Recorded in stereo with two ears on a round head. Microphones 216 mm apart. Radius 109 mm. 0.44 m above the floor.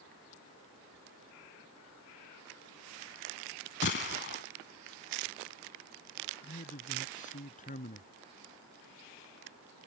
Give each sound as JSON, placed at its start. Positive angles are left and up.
{"t": 3.8, "sound": "a gunshot", "side_deg": 45}
{"t": 6.4, "sound": "a man speaking", "side_deg": 35}